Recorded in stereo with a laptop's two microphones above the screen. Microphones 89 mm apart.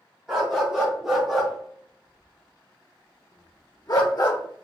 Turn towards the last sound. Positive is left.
turn(degrees=40)  # may be behind; listen again after turning